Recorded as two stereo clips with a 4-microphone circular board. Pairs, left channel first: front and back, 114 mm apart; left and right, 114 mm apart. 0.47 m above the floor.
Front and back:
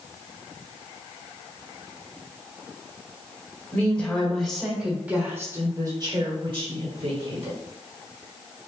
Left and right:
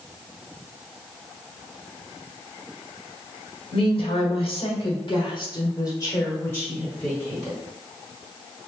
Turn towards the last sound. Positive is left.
turn(degrees=175)